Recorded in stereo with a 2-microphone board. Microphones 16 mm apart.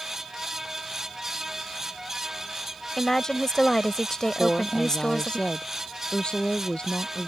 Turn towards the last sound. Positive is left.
turn(degrees=55)  # may be behind; listen again after turning